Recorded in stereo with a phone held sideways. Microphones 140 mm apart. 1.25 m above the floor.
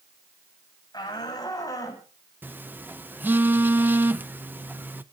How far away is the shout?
About 8 m.